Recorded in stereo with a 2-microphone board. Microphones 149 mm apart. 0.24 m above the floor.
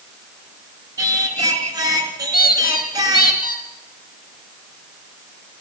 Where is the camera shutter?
No camera shutter in this recording.